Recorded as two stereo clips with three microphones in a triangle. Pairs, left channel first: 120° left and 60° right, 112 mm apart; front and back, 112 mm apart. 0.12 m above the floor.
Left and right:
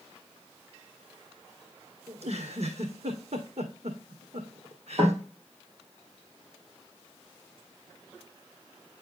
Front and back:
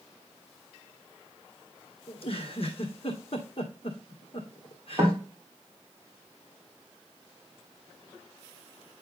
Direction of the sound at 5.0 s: 105° right.